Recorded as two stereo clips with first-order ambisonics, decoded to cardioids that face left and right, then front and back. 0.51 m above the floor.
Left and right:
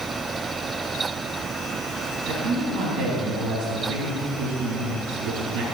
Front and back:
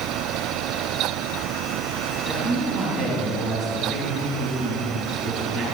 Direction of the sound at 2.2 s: 80° right.